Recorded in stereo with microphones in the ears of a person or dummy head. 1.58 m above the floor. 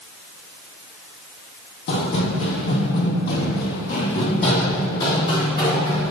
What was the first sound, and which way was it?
Running footsteps, 55° left (ahead or behind).